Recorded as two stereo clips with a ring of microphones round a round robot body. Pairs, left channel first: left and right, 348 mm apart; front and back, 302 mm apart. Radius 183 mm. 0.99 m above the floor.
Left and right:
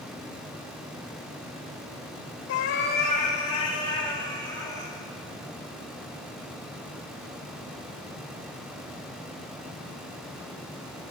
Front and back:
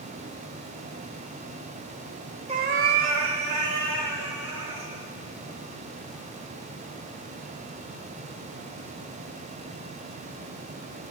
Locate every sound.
2.5 s a cat meowing: 120° left, 0.8 m; by 4.9 s 170° left, 3.5 m